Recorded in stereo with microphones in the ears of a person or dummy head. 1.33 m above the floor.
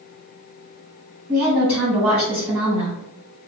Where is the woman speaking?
20° right (ahead or behind), 1.4 m.